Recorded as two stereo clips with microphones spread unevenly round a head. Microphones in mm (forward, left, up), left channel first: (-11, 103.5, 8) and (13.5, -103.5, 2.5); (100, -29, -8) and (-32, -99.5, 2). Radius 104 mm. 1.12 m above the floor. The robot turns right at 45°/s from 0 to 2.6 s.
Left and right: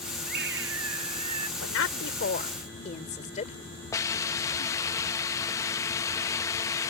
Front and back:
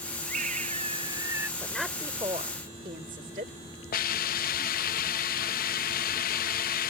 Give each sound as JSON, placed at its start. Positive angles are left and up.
{"t": 0.2, "sound": "a scream", "azimuth_deg": -130}
{"t": 1.6, "sound": "a woman speaking", "azimuth_deg": 110}
{"t": 3.9, "sound": "a hiss", "azimuth_deg": 25}